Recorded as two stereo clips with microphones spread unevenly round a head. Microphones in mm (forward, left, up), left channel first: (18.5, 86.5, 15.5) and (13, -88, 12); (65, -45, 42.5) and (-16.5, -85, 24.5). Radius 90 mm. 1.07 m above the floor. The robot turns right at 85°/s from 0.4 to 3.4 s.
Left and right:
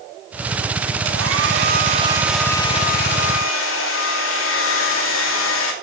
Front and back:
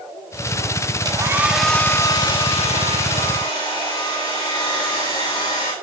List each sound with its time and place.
1.1 s a hair dryer: 115° right, 2.5 m; by 5.7 s 85° left, 2.5 m